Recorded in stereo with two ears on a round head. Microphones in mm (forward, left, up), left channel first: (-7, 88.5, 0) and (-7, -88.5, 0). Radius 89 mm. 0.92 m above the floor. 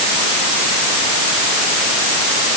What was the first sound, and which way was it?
Only background noise.